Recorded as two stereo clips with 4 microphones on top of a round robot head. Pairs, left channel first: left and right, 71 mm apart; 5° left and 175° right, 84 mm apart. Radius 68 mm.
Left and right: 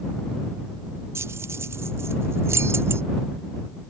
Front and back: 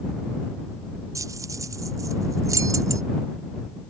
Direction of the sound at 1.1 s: 135° right.